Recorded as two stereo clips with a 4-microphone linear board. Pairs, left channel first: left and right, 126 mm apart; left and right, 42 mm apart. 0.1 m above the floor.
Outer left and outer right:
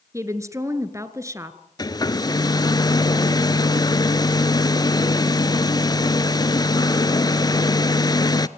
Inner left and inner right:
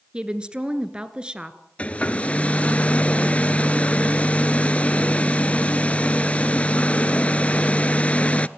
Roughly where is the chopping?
I don't hear chopping.